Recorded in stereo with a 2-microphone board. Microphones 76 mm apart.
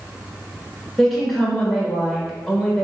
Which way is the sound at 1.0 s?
Centre (ahead or behind).